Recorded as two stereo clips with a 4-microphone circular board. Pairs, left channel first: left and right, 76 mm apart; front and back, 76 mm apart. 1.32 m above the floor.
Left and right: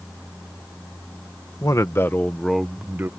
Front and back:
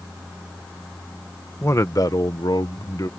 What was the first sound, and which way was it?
A man speaking, 50° left.